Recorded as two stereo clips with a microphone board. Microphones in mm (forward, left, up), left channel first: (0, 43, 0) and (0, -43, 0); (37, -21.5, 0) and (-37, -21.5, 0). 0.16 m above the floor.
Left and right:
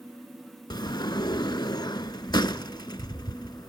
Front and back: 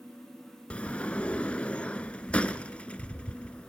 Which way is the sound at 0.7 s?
70° left.